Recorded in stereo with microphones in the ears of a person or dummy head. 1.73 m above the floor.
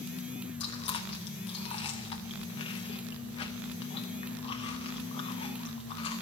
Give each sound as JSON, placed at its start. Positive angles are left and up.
{"t": 0.6, "sound": "chewing", "side_deg": 30, "distance_m": 0.7}